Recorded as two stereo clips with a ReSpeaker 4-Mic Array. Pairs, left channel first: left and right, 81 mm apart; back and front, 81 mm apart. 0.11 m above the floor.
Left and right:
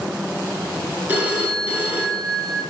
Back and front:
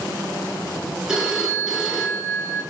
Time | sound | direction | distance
1.1 | a phone ringing | 75° right | 0.7 m